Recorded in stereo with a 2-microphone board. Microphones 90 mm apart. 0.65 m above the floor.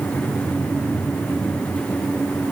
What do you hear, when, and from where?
Only background noise.